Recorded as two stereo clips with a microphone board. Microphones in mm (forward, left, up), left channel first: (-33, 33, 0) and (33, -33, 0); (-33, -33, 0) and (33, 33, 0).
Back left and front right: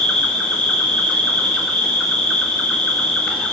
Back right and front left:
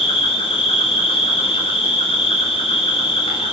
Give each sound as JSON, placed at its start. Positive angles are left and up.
{"t": 0.0, "sound": "an insect", "azimuth_deg": -145, "distance_m": 5.5}